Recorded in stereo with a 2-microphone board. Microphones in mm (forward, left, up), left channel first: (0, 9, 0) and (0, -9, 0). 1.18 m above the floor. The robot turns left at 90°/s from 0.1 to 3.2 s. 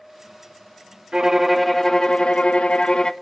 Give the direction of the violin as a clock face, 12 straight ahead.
5 o'clock.